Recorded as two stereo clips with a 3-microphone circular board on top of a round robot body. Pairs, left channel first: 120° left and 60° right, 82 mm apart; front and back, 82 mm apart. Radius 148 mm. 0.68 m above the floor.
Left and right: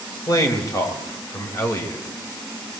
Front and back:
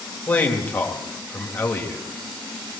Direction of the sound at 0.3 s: 70° left.